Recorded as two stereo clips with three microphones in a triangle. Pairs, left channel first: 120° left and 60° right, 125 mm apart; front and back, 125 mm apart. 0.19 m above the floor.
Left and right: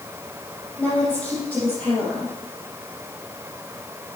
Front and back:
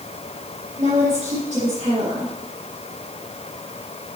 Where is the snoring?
I don't hear snoring.